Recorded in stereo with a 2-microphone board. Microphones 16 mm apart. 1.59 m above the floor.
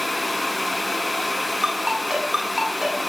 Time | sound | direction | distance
1.6 | a ringtone | 45° right (ahead or behind) | 9.5 m